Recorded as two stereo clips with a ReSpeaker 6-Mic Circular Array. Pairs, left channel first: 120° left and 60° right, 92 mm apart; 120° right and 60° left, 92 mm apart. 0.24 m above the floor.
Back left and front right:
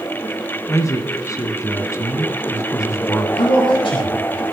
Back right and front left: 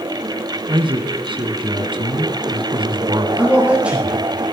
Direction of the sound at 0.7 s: 70° left.